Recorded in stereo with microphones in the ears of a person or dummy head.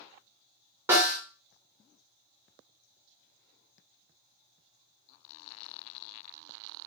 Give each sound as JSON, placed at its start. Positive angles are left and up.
{"t": 0.9, "sound": "a snare drum", "side_deg": -15, "distance_m": 1.5}